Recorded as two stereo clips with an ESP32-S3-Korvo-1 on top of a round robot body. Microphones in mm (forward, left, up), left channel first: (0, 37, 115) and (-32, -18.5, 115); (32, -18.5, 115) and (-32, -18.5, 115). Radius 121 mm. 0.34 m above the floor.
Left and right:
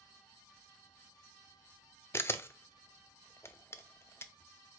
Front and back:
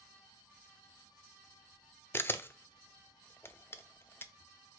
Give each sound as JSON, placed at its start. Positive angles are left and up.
{"t": 2.1, "sound": "a camera shutter", "azimuth_deg": 35, "distance_m": 0.6}